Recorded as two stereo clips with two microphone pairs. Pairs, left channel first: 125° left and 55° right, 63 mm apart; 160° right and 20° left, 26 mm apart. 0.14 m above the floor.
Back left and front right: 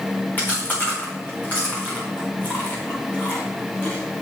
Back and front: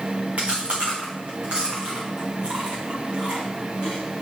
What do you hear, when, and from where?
0.4 s chewing: 65° left, 4.5 m